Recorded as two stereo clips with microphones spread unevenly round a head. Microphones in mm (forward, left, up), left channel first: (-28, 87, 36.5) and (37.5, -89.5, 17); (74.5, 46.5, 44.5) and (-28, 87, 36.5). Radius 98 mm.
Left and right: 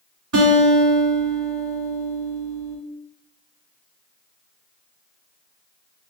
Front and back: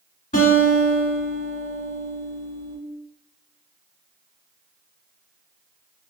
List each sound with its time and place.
0.3 s a guitar: 60° right, 1.3 m